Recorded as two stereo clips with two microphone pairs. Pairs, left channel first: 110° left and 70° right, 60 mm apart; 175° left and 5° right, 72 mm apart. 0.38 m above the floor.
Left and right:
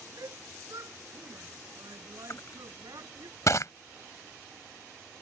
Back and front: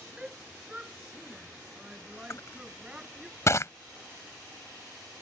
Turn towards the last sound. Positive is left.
turn(degrees=135)